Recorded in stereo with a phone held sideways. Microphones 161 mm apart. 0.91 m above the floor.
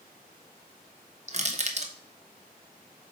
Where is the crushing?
45° right (ahead or behind), 0.9 m.